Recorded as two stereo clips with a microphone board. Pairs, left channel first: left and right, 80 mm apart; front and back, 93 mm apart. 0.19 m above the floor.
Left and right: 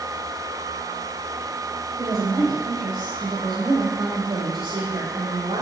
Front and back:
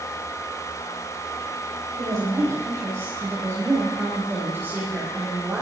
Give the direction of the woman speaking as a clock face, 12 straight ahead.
4 o'clock.